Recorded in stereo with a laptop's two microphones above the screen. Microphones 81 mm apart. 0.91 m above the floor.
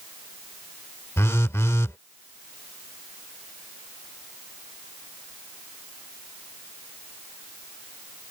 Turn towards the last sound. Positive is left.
turn(degrees=35)  # may be behind; listen again after turning